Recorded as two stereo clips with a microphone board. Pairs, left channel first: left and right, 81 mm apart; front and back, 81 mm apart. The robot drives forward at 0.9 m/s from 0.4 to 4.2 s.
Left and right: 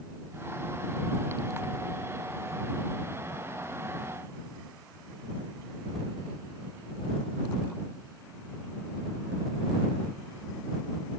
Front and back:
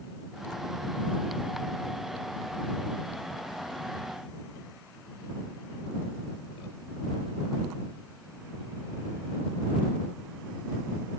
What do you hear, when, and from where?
Only background noise.